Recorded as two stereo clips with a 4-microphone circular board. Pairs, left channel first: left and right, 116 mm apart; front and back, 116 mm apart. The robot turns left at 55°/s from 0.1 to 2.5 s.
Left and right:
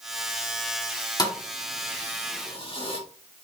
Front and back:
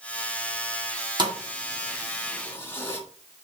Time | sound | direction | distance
1.2 | a thud | 140° left | 1.8 m